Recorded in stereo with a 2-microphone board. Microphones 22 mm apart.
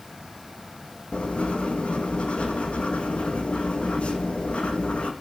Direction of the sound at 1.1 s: 65° left (ahead or behind).